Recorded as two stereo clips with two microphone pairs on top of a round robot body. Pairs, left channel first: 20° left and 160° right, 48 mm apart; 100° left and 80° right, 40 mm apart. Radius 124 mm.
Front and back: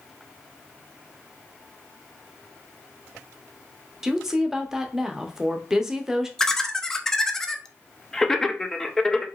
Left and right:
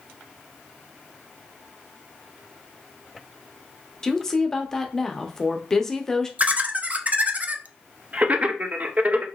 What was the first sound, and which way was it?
A woman speaking, 130° left.